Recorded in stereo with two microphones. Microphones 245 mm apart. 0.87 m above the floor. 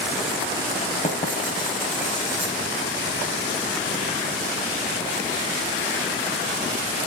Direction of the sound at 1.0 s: 35° left (ahead or behind).